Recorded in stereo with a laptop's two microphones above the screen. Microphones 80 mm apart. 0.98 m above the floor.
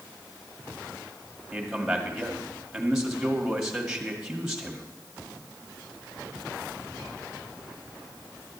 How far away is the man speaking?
About 1.8 m.